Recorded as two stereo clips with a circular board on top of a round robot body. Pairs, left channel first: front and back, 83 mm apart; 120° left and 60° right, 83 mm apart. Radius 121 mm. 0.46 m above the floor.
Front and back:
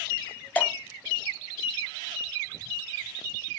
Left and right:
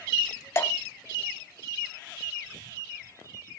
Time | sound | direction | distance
0.6 | dripping | 70° left | 0.8 m